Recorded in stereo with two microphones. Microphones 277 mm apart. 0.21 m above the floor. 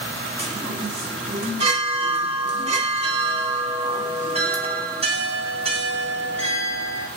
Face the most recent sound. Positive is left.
turn(degrees=-20)  # may be behind; listen again after turning